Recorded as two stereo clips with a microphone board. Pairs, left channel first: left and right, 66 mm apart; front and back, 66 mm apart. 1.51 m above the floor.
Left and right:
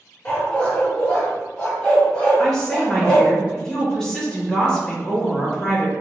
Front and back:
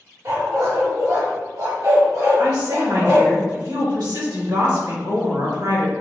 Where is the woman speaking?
175° left, 1.9 m.